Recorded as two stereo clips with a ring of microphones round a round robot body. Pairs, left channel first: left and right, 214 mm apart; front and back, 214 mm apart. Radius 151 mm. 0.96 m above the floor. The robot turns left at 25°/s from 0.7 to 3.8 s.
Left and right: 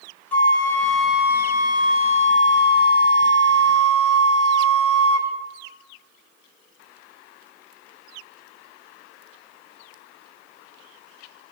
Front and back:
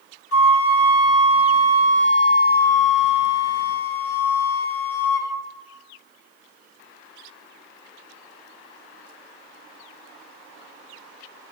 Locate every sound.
0.3 s a flute: 5° left, 0.9 m; by 5.3 s 70° right, 0.9 m